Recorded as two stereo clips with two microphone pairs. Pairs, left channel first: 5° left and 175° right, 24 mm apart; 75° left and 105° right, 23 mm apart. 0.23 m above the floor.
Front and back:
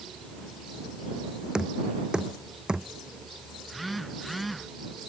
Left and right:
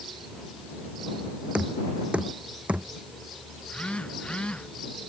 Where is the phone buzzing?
95° left.